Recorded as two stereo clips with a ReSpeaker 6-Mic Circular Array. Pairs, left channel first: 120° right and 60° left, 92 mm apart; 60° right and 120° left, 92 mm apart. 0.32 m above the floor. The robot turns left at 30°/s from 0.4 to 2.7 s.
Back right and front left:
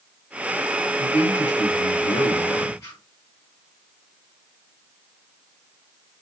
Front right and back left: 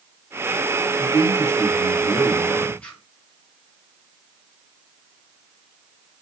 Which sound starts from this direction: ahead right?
A man speaking, at 1.0 s.